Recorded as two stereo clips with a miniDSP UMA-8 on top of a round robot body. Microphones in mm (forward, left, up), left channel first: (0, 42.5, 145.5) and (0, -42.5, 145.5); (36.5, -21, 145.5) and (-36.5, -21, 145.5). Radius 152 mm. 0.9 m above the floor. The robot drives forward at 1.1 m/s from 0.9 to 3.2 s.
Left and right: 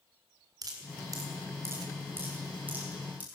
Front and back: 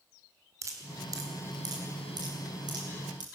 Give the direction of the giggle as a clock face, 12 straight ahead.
No giggle in this recording.